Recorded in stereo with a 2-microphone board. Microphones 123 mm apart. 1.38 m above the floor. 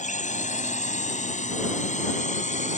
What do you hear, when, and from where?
0.0 s a drone: 80° left; by 2.8 s 75° left (ahead or behind)